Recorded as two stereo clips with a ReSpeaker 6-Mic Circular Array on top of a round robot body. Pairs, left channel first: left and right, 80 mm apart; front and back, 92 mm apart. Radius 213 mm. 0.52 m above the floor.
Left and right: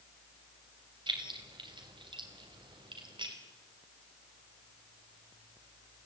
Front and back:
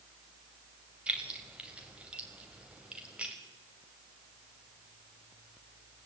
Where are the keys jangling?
100° right, 3 m.